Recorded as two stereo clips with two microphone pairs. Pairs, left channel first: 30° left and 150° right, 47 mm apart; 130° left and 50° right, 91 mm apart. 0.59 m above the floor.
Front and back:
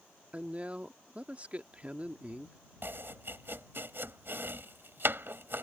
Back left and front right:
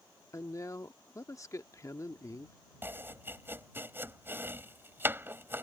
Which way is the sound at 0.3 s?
165° left.